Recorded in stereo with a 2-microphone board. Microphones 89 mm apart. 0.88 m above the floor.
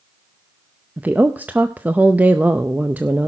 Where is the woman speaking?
20° right (ahead or behind), 0.6 m.